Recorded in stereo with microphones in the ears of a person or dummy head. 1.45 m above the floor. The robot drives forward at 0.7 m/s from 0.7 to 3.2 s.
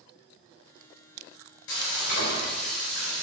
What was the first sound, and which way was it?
Frying, 65° left (ahead or behind).